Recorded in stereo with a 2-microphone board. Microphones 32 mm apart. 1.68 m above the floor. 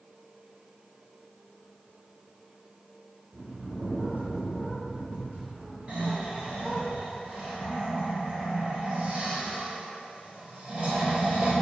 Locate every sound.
3.3 s a bird: 50° right (ahead or behind), 2 m
5.9 s snoring: 40° right (ahead or behind), 1.9 m